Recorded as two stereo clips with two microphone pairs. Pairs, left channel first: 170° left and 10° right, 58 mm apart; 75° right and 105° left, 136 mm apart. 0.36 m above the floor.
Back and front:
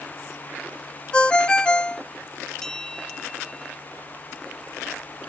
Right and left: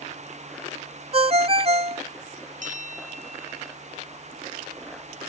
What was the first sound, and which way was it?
A ringtone, 105° left.